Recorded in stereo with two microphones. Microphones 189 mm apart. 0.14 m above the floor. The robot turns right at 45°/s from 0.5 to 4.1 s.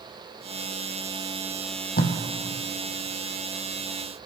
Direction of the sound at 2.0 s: 55° left (ahead or behind).